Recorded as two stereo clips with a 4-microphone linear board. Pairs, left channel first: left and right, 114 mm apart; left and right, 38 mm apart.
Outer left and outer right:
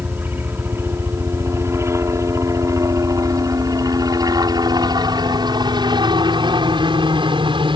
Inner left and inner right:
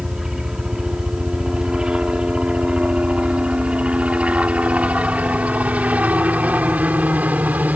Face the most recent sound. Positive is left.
turn(degrees=-45)  # may be behind; listen again after turning